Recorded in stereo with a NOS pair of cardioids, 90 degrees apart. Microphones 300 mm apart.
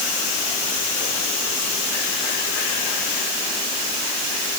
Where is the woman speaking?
I don't hear a woman speaking.